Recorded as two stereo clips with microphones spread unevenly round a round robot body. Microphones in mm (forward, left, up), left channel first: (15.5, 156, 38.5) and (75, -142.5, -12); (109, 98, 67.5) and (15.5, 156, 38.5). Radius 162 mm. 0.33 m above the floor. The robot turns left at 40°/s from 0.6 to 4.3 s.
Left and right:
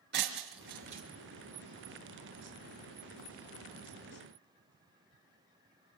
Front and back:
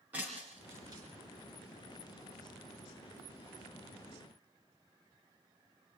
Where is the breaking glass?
135° right, 3.5 m; by 1.0 s 150° right, 3.5 m.